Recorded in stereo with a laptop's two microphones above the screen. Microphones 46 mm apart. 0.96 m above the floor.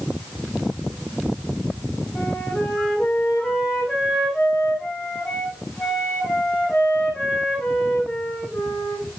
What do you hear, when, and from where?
2.1 s a flute: 5° left (ahead or behind), 8 m